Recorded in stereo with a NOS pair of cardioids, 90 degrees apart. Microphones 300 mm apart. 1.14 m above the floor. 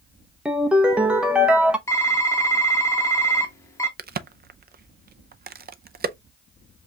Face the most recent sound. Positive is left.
turn(degrees=-30)